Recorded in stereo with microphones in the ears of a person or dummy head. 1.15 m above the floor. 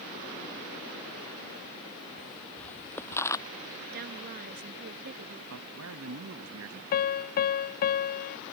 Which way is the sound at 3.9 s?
55° right (ahead or behind).